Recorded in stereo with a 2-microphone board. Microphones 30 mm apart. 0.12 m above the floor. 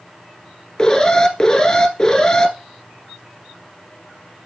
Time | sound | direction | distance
0.8 | an alarm | 20° left (ahead or behind) | 1.2 m